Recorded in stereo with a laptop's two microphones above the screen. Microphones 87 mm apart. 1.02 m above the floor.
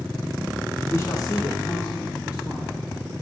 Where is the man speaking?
30° left (ahead or behind), 0.8 m; by 2.9 s 50° left (ahead or behind), 2.5 m.